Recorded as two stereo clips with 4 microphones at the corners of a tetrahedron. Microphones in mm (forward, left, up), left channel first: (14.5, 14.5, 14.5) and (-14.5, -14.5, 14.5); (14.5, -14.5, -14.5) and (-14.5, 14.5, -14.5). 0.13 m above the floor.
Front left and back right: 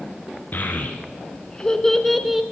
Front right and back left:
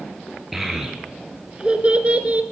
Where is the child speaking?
50° left, 1.1 m; by 2.4 s 145° left, 1.0 m.